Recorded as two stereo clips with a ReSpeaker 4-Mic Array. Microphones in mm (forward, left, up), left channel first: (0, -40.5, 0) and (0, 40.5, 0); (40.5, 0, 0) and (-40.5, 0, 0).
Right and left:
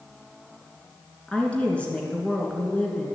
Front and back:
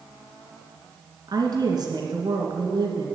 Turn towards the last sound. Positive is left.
turn(degrees=-165)